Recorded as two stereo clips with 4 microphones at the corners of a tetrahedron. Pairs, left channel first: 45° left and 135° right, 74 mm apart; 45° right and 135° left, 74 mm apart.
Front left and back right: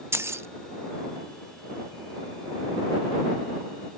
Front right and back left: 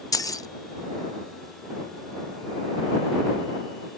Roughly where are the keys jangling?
Right.